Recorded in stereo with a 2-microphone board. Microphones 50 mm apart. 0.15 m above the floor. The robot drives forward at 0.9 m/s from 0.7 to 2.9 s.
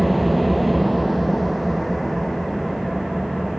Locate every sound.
0.0 s an engine running: centre (ahead or behind), 1.1 m